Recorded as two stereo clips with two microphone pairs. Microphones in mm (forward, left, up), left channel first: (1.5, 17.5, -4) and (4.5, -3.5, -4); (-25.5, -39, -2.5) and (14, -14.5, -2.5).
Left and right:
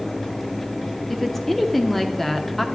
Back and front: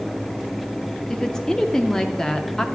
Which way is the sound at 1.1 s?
150° left.